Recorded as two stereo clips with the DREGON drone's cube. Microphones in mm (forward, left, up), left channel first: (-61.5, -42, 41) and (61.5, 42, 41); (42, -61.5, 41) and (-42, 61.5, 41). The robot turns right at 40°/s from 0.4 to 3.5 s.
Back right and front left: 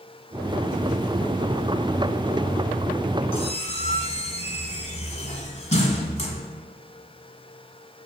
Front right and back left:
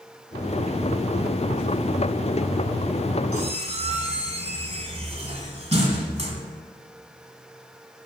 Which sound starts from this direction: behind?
A squeak, at 3.3 s.